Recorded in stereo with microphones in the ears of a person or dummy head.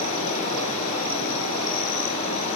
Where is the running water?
40° left (ahead or behind), 4 m.